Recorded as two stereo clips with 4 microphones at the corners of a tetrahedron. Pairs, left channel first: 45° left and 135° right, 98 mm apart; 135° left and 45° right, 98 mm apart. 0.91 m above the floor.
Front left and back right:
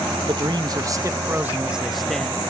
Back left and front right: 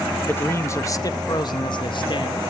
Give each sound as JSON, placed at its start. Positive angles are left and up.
{"t": 0.3, "sound": "a man speaking", "azimuth_deg": -160, "distance_m": 1.1}